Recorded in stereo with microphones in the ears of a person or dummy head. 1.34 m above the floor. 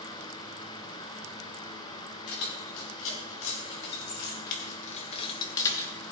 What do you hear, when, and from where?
2.3 s keys jangling: 75° left (ahead or behind), 2 m; by 5.9 s 10° left (ahead or behind), 1.2 m